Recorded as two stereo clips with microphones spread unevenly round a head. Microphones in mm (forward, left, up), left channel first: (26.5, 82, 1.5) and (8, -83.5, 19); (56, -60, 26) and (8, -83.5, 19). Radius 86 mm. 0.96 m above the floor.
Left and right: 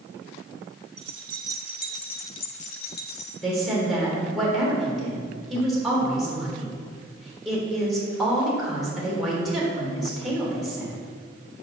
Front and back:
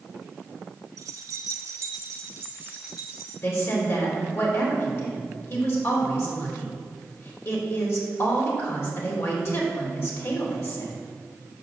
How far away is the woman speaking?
About 3.5 m.